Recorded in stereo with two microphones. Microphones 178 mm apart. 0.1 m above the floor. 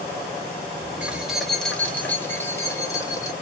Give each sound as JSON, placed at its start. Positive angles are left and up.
{"t": 1.0, "sound": "keys jangling", "side_deg": -5, "distance_m": 1.2}